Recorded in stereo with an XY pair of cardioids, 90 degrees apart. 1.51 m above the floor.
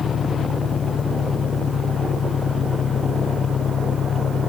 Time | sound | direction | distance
0.0 | an engine running | 60° left | ?